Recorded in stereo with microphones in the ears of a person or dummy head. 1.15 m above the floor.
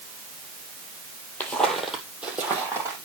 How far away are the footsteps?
About 1.9 m.